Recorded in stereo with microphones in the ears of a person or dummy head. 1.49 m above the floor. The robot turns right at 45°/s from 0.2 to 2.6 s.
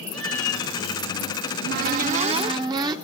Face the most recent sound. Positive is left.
turn(degrees=-35)